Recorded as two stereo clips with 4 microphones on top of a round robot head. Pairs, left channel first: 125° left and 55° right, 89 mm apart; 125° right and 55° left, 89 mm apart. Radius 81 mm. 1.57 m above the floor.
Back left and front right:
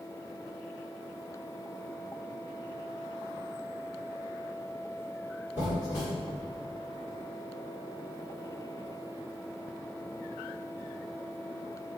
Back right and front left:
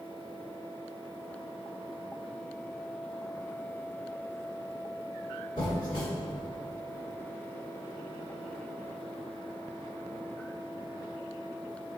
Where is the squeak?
120° right, 1.3 m.